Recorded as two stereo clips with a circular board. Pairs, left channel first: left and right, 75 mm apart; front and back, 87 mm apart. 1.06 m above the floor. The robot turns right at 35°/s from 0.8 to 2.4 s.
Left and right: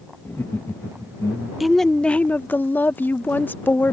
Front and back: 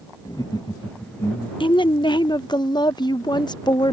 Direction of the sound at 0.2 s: 30° left.